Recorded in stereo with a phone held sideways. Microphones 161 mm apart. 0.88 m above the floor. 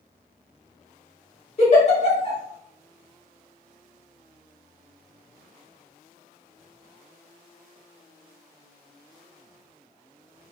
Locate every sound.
1.6 s a giggle: 45° left (ahead or behind), 1.3 m